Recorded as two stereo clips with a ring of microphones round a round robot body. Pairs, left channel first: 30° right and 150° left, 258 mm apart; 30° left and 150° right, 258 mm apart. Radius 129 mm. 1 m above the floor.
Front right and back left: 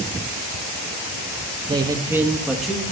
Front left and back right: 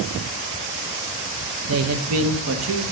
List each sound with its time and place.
1.7 s a man speaking: 140° right, 1.0 m; by 2.8 s 120° right, 1.5 m